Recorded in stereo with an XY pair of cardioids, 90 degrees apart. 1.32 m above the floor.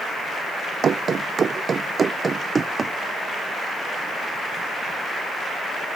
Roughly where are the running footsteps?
Ahead right.